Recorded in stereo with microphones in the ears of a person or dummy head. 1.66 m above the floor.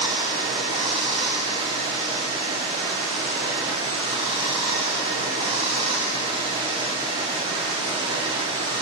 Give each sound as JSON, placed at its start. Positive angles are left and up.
{"t": 0.0, "sound": "running water", "side_deg": -35, "distance_m": 0.9}